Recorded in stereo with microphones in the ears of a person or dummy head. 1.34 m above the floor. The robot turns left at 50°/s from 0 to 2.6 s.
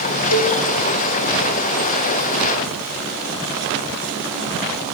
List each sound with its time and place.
0.3 s a cowbell: 80° left, 3 m; by 0.6 s 65° left (ahead or behind), 3 m